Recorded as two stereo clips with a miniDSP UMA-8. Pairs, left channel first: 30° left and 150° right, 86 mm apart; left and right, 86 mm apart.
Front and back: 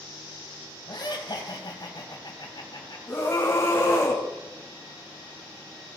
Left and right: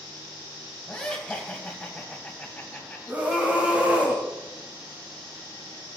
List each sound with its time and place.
0.9 s laughter: 10° left, 2.5 m
3.1 s a scream: 20° right, 2.0 m